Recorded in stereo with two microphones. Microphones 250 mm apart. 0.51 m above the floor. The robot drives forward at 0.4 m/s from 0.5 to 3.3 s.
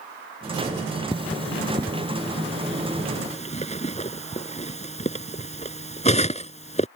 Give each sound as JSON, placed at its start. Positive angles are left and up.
{"t": 1.1, "sound": "cutlery clinking", "side_deg": 20}